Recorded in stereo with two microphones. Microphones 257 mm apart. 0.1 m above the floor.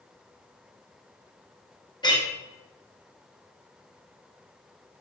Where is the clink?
15° left (ahead or behind), 1.0 m.